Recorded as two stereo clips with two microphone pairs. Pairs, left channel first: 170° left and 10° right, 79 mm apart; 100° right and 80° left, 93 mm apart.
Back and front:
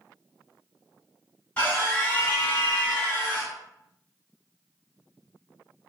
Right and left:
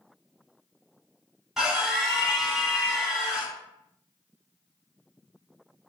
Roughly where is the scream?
Behind left.